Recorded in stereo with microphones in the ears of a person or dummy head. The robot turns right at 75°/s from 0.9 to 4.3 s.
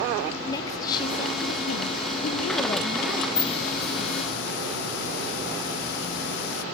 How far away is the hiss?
About 1.5 m.